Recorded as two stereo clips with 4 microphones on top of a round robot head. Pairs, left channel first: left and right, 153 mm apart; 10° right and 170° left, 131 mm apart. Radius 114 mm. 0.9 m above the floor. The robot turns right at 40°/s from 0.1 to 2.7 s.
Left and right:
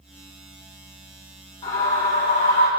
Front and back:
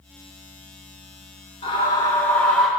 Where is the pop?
I don't hear a pop.